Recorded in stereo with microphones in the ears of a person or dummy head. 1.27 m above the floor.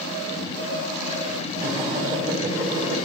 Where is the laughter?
30° right (ahead or behind), 2 m.